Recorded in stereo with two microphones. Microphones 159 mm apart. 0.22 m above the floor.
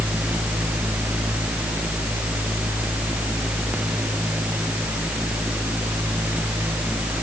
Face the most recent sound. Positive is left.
No sound to turn to.